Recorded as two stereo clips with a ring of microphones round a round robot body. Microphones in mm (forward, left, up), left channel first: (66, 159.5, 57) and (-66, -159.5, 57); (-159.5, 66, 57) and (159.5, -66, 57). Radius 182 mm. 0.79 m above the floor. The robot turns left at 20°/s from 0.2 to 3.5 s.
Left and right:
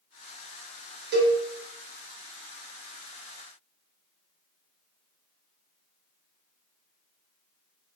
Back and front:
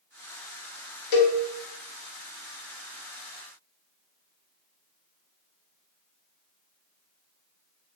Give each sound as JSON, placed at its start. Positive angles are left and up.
{"t": 1.1, "sound": "a cowbell", "azimuth_deg": -175, "distance_m": 0.6}